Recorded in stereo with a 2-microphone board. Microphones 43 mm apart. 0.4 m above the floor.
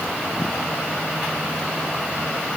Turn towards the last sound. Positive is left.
No sound to turn to.